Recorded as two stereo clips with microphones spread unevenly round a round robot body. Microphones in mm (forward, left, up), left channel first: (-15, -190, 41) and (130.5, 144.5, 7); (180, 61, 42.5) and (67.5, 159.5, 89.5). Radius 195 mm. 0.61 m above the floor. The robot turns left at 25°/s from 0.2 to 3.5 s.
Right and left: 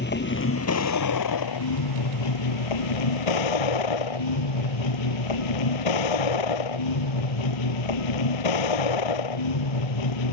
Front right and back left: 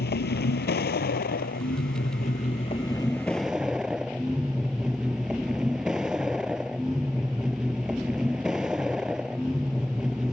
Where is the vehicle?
55° right; by 10.3 s 135° right.